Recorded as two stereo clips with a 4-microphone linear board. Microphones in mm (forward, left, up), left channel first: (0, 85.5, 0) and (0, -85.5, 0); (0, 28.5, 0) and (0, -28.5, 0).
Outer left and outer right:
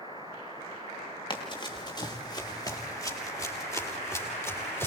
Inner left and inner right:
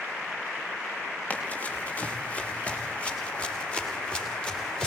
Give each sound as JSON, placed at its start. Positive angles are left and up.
{"t": 1.3, "sound": "running footsteps", "side_deg": 25, "distance_m": 7.0}